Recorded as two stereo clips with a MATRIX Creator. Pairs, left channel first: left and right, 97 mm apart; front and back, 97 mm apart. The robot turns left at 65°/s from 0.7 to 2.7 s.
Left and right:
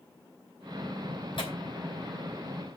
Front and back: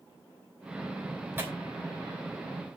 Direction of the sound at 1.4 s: 115° left.